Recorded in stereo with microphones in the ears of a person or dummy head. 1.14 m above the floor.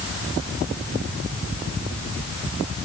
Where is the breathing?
No breathing in this recording.